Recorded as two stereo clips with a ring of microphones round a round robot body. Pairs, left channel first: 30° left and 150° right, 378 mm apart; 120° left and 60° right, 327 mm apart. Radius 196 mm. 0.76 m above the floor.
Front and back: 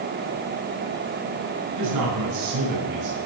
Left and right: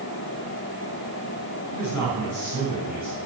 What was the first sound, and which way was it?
A man speaking, 165° left.